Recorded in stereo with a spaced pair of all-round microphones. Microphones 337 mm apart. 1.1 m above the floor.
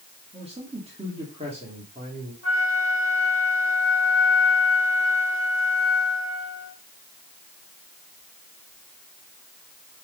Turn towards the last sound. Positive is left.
turn(degrees=40)  # may be behind; listen again after turning